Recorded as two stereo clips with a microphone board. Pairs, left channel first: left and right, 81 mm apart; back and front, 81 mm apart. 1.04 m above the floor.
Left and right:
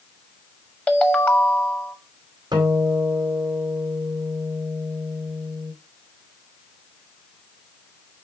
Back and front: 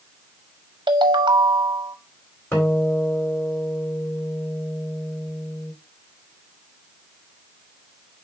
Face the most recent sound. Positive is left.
turn(degrees=-120)